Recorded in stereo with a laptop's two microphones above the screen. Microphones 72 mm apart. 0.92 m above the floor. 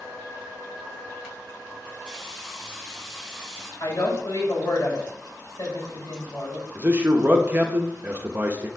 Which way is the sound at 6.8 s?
25° right (ahead or behind).